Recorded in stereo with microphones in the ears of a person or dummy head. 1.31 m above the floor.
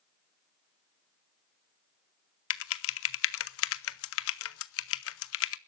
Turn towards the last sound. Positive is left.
turn(degrees=75)  # may be behind; listen again after turning